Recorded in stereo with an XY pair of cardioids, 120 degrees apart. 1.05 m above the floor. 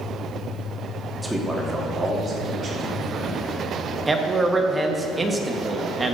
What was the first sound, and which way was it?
A man speaking, 5° right.